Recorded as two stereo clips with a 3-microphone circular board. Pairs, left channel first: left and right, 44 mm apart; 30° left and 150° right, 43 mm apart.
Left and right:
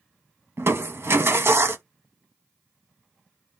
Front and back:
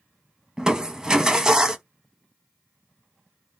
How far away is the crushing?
About 0.6 m.